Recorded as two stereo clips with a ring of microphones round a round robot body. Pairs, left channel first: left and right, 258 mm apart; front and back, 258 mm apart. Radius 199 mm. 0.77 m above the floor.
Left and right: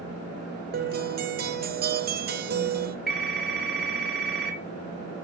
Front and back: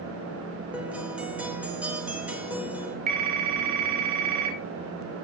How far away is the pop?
No pop in this recording.